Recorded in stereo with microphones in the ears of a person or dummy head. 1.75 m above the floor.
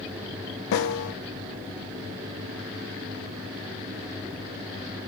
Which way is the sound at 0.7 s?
75° left (ahead or behind).